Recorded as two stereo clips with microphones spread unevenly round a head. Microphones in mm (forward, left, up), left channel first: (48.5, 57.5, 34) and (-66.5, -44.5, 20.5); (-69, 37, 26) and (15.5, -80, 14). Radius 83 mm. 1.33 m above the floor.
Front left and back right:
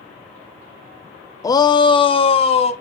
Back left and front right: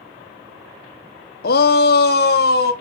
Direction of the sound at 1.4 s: 110° left.